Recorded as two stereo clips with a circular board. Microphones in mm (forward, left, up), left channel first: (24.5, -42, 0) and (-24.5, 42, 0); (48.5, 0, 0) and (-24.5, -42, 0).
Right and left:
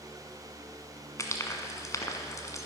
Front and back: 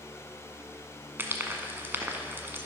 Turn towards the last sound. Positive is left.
turn(degrees=-100)